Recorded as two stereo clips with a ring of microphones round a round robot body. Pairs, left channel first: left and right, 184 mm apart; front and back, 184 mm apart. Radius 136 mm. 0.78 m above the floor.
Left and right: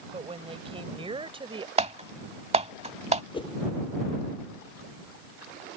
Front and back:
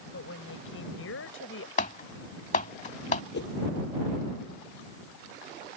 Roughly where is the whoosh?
Ahead left.